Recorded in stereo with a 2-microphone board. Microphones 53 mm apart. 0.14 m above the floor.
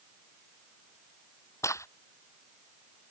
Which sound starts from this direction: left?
A crack, at 1.6 s.